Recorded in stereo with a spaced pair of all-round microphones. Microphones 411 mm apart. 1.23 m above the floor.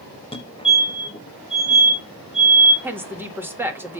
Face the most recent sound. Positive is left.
turn(degrees=-5)  # may be behind; listen again after turning